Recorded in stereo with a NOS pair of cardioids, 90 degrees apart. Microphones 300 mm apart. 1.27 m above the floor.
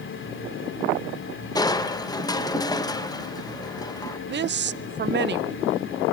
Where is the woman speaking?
35° right, 0.7 m.